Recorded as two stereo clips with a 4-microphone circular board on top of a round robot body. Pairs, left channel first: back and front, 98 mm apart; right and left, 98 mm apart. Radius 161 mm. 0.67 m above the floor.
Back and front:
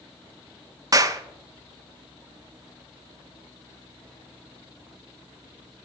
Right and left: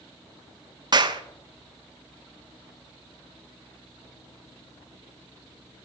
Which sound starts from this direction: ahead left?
A clap, at 0.9 s.